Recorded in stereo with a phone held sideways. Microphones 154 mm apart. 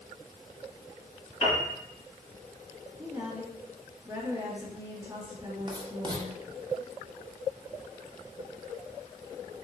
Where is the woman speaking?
10° right (ahead or behind), 1.5 m.